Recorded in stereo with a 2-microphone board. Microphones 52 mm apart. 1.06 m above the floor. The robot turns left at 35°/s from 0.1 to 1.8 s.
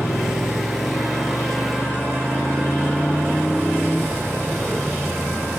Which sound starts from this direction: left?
A motorcycle, at 0.0 s.